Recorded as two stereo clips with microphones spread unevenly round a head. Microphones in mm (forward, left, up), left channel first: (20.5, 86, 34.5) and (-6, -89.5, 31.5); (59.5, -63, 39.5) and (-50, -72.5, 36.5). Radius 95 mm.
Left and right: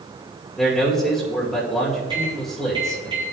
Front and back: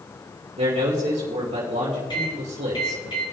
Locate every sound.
0.6 s a man speaking: 170° left, 2.5 m
2.1 s a microwave: 35° right, 4 m